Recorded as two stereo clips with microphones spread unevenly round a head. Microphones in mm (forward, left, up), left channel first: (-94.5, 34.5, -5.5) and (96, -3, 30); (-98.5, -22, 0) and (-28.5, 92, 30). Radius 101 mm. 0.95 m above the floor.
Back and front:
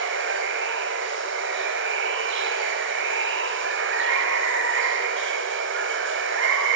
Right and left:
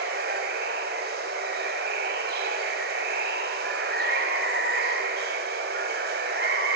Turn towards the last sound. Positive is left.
turn(degrees=15)